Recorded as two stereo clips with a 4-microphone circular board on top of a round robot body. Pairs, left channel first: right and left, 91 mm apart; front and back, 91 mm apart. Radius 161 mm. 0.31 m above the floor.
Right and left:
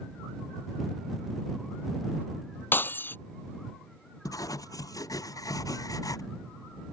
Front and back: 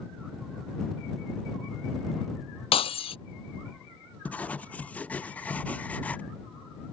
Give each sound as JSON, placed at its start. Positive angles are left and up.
{"t": 2.7, "sound": "breaking glass", "azimuth_deg": -20}
{"t": 4.2, "sound": "writing", "azimuth_deg": -65}